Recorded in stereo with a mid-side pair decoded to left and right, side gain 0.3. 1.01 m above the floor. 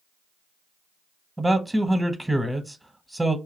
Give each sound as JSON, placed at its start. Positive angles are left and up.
{"t": 1.4, "sound": "a man speaking", "azimuth_deg": -15, "distance_m": 0.7}